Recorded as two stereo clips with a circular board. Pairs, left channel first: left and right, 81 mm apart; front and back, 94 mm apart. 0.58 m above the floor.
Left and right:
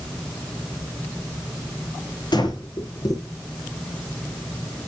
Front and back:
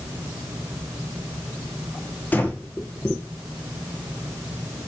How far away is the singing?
I don't hear singing.